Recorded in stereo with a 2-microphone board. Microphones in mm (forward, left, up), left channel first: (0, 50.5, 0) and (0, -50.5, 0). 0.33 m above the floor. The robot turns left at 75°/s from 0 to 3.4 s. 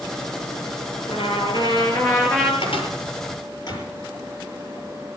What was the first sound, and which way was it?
A trumpet, 110° left.